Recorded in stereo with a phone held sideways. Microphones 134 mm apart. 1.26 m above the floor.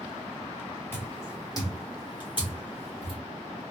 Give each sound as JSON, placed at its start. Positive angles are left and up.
{"t": 0.9, "sound": "footsteps", "side_deg": 15, "distance_m": 1.3}